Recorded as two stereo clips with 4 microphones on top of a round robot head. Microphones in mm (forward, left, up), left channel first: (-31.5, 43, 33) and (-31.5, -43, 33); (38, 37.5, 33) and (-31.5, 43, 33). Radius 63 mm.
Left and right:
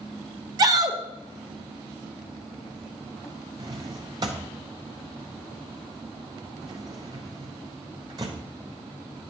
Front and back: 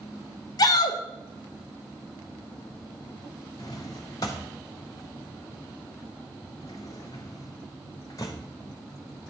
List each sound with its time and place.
0.6 s a shout: 40° right, 0.7 m
3.6 s a drawer: 50° right, 0.6 m